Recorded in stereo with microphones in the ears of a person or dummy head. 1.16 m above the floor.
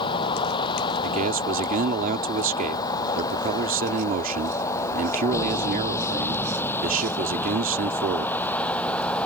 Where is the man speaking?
45° right (ahead or behind).